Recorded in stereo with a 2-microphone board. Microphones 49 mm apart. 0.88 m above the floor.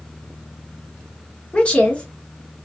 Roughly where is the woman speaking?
Left.